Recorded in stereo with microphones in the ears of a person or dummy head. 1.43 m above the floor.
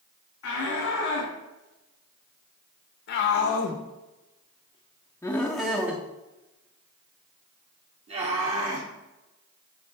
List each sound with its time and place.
0.4 s a shout: 85° left, 2.5 m; by 8.9 s 50° right (ahead or behind), 2.5 m